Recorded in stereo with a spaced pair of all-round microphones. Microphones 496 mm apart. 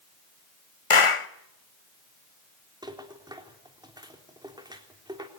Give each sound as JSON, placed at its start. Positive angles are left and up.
{"t": 0.9, "sound": "a clap", "side_deg": 80, "distance_m": 1.1}
{"t": 2.8, "sound": "a rattle", "side_deg": -10, "distance_m": 3.5}